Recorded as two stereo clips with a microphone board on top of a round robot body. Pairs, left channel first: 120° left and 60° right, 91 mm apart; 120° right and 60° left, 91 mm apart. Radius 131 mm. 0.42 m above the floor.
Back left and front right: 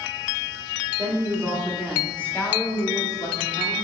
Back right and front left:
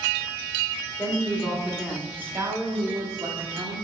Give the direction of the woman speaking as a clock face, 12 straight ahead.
2 o'clock.